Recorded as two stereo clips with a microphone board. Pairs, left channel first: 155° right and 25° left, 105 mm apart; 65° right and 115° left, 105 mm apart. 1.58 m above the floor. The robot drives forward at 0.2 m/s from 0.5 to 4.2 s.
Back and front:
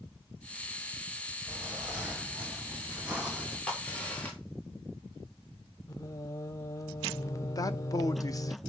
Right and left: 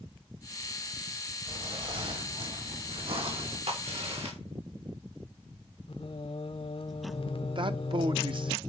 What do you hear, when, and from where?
1.5 s footsteps: 95° left, 3 m; by 3.6 s 100° left, 5 m
3.7 s a crack: 125° left, 3 m
5.9 s singing: 100° right, 0.6 m
7.5 s a man speaking: 150° left, 0.8 m